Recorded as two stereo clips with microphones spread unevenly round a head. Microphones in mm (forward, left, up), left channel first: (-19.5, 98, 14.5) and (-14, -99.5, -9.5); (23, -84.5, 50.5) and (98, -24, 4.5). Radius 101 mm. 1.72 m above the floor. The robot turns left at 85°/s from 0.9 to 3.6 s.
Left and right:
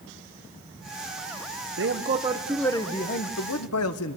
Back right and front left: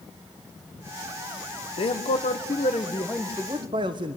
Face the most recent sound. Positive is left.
turn(degrees=90)